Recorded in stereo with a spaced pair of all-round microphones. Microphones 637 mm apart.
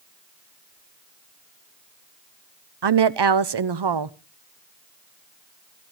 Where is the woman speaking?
45° right (ahead or behind), 0.5 m.